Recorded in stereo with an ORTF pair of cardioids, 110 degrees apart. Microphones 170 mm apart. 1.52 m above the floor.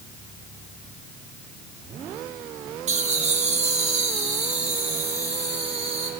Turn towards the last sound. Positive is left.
turn(degrees=-40)